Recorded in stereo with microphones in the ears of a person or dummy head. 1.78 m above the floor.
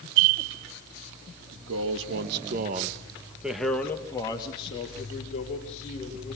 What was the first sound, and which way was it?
A man speaking, 80° right.